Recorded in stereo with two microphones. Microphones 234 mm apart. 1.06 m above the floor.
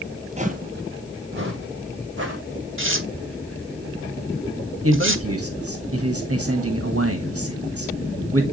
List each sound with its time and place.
0.4 s footsteps: 25° right (ahead or behind), 1.1 m; by 2.4 s 50° right (ahead or behind), 3 m
2.8 s tearing paper: 55° right (ahead or behind), 1.0 m
4.8 s a man speaking: 70° right (ahead or behind), 1.5 m